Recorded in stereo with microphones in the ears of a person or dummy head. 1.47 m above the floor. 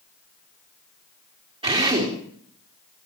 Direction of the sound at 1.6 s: 25° right (ahead or behind).